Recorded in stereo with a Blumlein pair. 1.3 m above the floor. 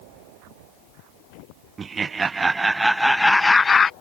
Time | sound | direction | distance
1.8 | laughter | 20° right | ?